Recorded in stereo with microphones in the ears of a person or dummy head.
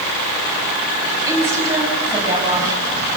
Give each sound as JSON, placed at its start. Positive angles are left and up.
{"t": 1.3, "sound": "a woman speaking", "side_deg": -20, "distance_m": 9.5}